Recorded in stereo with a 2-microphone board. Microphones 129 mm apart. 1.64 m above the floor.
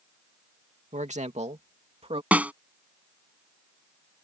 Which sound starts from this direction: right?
A man speaking, at 0.9 s.